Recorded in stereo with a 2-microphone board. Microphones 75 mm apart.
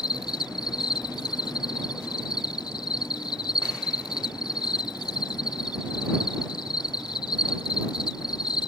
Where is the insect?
85° left.